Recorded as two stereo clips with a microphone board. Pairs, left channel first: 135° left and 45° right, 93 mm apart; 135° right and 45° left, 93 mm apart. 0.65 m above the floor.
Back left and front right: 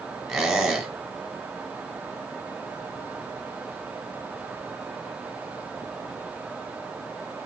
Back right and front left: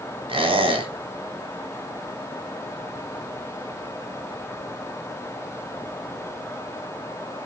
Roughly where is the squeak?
Ahead left.